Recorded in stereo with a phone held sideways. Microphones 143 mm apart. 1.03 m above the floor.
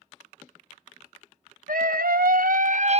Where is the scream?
80° right, 1.5 m; by 3.0 s 45° right (ahead or behind), 0.7 m.